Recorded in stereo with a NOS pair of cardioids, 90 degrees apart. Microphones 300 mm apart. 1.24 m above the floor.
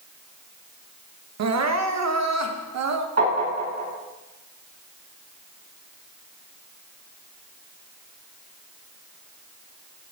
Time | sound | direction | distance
1.4 | crying | 55° right | 1.2 m
3.2 | tapping | 55° right | 7.5 m